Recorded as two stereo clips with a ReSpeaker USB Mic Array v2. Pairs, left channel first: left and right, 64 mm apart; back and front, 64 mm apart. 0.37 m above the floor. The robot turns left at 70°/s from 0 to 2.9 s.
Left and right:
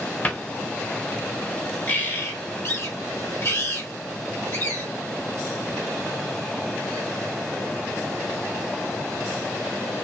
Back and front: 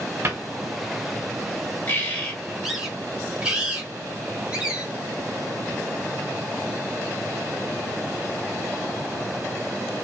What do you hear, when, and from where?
0.2 s a cupboard door: 35° left, 0.8 m; by 0.4 s 25° left, 0.8 m
1.9 s a bird: 140° left, 1.1 m; by 4.8 s 70° left, 1.1 m